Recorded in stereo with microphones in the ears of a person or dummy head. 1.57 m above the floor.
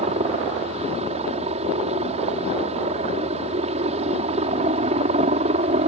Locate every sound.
0.0 s a helicopter: 30° right (ahead or behind)